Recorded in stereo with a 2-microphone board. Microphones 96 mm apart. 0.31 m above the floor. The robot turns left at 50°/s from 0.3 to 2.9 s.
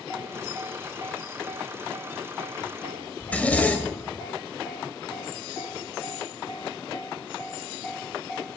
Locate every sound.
3.2 s a zipper: 15° left (ahead or behind), 0.7 m